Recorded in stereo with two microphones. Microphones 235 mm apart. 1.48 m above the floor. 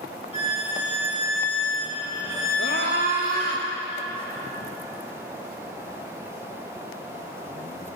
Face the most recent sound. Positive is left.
turn(degrees=65)  # may be behind; listen again after turning